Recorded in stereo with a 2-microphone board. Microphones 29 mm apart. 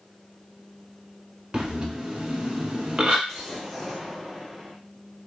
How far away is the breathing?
About 0.8 m.